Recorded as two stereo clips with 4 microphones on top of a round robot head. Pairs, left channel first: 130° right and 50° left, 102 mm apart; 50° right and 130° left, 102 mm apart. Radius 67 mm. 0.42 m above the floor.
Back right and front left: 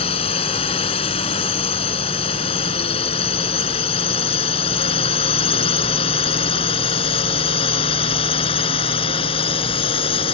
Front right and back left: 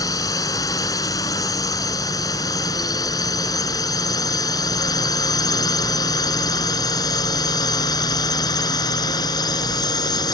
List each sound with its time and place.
0.0 s a drone: 105° right; by 10.3 s 100° right